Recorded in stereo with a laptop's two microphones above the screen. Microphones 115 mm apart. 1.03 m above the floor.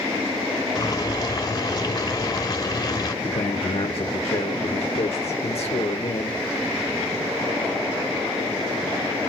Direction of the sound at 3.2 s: 60° left (ahead or behind).